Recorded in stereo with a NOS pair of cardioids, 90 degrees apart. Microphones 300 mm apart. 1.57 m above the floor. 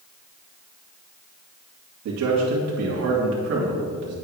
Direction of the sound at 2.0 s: 65° right.